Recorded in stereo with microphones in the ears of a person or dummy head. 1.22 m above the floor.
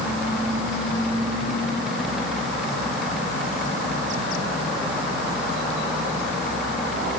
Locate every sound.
Only background noise.